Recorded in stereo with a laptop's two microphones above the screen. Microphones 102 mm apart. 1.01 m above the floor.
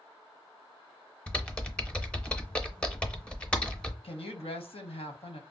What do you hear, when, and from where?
1.3 s typing on a keyboard: 10° left (ahead or behind), 0.6 m
4.0 s a woman speaking: 65° left (ahead or behind), 0.9 m